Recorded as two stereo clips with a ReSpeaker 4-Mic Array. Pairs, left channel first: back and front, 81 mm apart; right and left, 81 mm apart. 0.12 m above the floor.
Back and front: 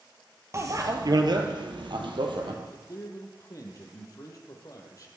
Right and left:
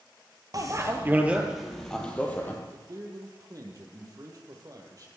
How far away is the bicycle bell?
About 2 m.